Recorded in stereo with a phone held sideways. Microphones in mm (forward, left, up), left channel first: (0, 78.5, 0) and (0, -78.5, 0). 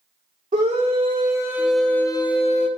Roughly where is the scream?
Right.